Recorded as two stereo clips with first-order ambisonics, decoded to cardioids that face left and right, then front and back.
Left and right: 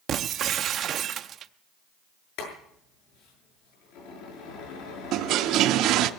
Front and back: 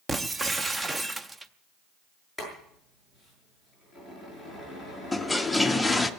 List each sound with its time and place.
0.1 s breaking glass: 110° right, 0.5 m
2.4 s boiling: 95° left, 7 m
5.1 s a toilet flushing: 85° right, 0.5 m